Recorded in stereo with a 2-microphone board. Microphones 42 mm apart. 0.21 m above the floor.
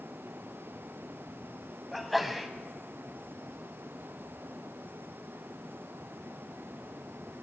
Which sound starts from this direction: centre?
A sneeze, at 1.9 s.